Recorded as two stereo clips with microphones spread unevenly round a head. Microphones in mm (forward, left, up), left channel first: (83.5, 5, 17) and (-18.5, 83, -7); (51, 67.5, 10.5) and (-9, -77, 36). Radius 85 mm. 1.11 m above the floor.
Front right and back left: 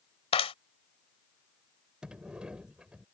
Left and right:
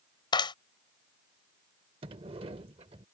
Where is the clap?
5° left.